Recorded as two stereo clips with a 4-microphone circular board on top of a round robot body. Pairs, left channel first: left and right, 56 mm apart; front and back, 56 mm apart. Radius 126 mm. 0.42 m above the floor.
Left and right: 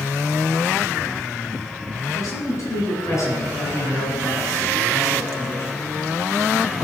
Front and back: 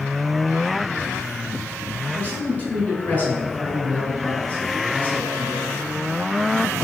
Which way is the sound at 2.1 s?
60° left.